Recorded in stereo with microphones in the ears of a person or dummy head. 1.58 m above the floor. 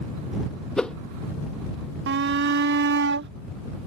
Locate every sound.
0.8 s a whoosh: 5° right (ahead or behind)
2.1 s a shout: 65° right (ahead or behind)